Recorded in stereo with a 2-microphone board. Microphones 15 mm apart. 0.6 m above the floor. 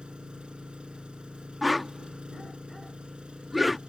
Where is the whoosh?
5° right (ahead or behind).